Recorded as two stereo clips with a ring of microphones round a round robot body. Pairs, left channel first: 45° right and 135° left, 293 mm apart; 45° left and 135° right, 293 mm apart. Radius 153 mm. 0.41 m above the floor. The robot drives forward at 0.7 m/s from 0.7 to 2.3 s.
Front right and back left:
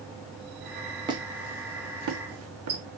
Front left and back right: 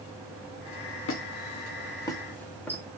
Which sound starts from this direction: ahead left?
A squeak, at 1.1 s.